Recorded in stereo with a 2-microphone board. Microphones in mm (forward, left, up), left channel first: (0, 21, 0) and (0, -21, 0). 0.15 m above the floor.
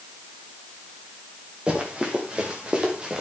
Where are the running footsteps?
20° right (ahead or behind), 5 m.